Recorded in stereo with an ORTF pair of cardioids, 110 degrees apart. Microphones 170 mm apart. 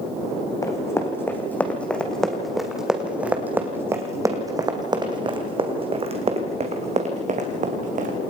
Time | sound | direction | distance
0.6 | running footsteps | 20° left | 3.5 m